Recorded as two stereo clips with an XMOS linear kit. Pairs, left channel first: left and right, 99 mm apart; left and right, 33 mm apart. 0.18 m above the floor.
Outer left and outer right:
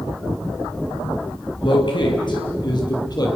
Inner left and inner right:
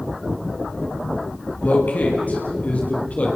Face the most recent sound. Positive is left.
turn(degrees=40)  # may be behind; listen again after turning